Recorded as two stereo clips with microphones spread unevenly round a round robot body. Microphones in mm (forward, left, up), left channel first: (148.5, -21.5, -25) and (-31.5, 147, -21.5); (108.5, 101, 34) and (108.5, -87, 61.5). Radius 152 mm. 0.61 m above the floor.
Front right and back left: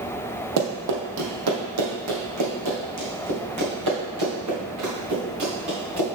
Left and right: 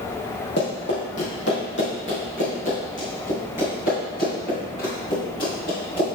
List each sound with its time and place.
0.6 s running footsteps: 150° left, 1.3 m; by 6.1 s 140° left, 4.5 m